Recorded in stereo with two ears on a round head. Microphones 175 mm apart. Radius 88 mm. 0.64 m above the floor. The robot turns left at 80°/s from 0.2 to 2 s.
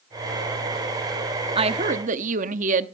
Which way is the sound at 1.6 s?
40° right.